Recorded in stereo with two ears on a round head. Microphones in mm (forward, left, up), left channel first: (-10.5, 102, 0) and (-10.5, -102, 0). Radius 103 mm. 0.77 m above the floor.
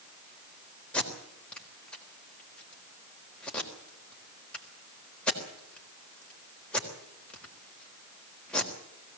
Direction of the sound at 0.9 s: 5° left (ahead or behind).